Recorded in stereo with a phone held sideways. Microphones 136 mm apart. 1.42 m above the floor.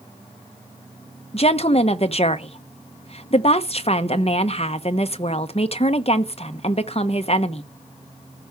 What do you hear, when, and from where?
1.3 s a woman speaking: 45° left (ahead or behind), 0.9 m